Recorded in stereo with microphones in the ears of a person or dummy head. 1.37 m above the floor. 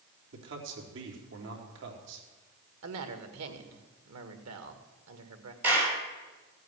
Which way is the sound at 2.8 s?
85° right.